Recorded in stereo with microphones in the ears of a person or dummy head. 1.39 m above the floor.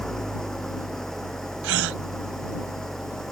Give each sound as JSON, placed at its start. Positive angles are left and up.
{"t": 0.0, "sound": "an engine running", "side_deg": 0}
{"t": 1.6, "sound": "a gasp", "side_deg": -75}